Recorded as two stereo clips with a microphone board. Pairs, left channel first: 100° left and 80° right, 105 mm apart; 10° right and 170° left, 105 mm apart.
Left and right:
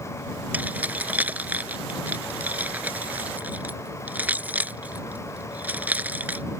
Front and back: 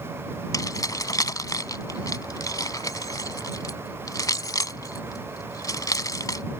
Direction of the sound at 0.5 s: 20° right.